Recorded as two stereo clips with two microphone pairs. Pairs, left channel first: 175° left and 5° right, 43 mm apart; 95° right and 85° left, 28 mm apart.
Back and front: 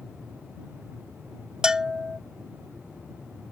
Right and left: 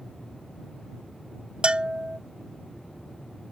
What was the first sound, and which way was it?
A bell, 60° left.